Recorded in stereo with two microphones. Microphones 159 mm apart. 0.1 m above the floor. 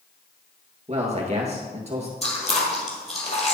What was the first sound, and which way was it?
A man speaking, 45° right (ahead or behind).